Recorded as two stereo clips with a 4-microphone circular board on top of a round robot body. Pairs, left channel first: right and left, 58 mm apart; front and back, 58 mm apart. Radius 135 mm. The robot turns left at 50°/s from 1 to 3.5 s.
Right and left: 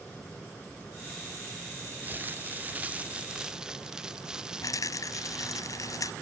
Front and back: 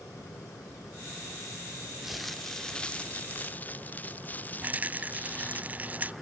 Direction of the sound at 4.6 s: 115° right.